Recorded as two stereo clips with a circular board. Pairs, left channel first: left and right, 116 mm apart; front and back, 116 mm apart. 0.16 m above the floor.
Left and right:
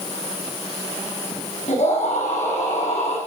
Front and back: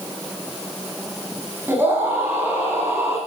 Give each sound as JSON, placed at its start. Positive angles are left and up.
{"t": 1.7, "sound": "a scream", "azimuth_deg": 110, "distance_m": 8.0}